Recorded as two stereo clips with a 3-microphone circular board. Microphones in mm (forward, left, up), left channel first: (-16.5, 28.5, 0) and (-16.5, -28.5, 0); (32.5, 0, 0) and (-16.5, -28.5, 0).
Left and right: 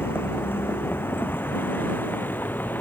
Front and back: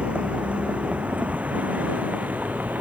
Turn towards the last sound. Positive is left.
turn(degrees=145)